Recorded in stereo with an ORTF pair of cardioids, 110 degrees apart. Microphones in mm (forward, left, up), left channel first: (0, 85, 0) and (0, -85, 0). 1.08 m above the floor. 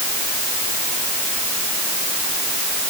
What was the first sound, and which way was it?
Only background noise.